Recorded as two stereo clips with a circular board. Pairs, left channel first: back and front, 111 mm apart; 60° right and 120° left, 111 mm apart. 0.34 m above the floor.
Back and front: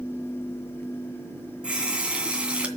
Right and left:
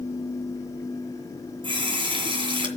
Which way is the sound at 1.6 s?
80° left.